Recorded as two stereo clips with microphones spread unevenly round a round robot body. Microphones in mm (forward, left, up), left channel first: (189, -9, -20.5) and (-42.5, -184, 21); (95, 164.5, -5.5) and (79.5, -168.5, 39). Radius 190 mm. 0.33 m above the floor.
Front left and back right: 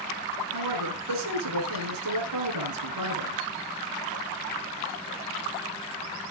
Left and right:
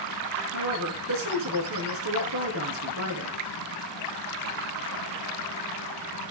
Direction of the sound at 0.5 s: 145° right.